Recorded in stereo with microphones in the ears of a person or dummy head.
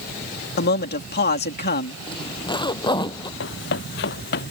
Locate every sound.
0.6 s a man speaking: 50° left (ahead or behind)
2.1 s a zipper: 20° left (ahead or behind)
3.4 s running footsteps: 60° left (ahead or behind); by 4.5 s 55° left (ahead or behind)